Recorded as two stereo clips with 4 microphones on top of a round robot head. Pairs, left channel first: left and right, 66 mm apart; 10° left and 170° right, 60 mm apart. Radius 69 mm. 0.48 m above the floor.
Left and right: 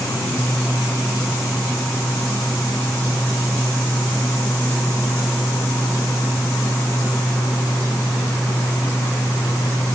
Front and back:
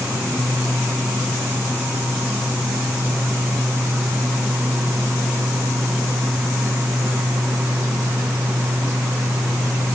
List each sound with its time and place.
Only background noise.